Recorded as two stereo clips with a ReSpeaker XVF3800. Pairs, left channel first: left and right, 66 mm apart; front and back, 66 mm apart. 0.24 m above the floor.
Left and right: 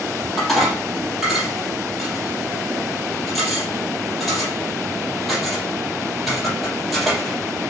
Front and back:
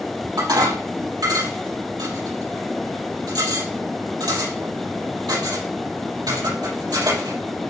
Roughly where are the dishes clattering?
Behind.